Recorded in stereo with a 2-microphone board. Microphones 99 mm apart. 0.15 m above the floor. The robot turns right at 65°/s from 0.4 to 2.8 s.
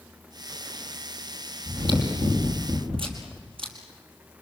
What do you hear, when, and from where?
1.6 s chewing: 145° right, 4.5 m; by 3.7 s 75° right, 4.5 m